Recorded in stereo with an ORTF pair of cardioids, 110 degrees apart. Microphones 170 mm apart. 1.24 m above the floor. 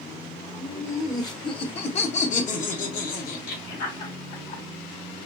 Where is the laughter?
5° left, 1.0 m; by 4.6 s 70° left, 2.5 m.